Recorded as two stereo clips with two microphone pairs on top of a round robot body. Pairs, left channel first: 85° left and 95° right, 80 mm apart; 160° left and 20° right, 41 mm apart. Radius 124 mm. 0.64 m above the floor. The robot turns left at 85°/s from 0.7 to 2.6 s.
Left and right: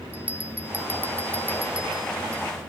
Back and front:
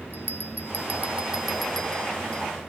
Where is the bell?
55° right, 0.9 m; by 2.4 s 160° left, 0.9 m.